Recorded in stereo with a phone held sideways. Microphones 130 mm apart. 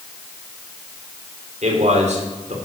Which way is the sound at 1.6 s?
65° right (ahead or behind).